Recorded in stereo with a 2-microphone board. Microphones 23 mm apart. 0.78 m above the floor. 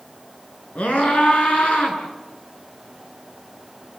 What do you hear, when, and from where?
0.8 s a scream: 85° left, 9.5 m